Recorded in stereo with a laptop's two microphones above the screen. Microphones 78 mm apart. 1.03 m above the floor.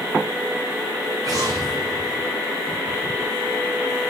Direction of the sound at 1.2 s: 50° right (ahead or behind).